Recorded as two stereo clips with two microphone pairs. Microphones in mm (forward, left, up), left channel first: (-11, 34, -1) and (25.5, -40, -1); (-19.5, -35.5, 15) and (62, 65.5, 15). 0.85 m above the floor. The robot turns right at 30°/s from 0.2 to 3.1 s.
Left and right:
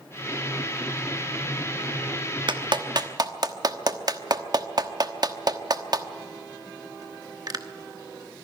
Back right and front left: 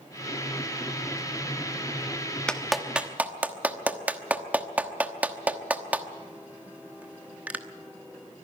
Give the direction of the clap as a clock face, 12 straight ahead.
1 o'clock.